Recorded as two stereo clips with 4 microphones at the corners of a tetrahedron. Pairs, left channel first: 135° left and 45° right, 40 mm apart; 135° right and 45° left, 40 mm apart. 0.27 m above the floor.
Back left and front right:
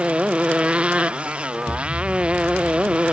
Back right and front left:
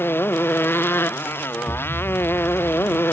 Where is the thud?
45° right.